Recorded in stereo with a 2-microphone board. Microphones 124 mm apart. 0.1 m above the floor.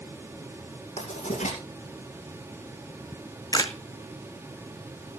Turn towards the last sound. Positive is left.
turn(degrees=30)  # may be behind; listen again after turning